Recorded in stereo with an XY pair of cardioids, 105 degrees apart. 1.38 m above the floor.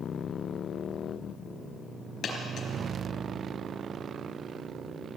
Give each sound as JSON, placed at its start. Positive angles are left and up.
{"t": 2.2, "sound": "a dropped coin", "azimuth_deg": 65, "distance_m": 4.0}